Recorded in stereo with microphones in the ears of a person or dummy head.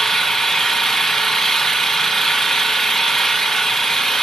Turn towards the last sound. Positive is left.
turn(degrees=5)  # may be behind; listen again after turning